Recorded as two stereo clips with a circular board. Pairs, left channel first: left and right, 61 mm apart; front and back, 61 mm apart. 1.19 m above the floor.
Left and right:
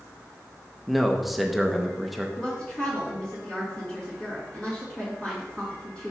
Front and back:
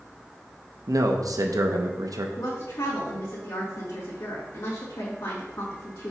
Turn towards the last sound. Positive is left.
turn(degrees=15)